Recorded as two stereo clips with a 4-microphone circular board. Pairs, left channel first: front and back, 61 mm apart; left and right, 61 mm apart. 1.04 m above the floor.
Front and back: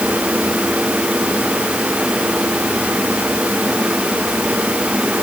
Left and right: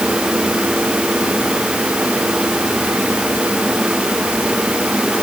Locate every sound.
Only background noise.